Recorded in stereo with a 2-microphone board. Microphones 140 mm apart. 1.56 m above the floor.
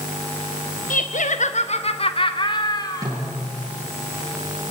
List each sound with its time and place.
0.9 s laughter: 85° left, 1.2 m; by 3.1 s 30° left (ahead or behind), 2.5 m
3.0 s a snare drum: 25° right (ahead or behind), 10 m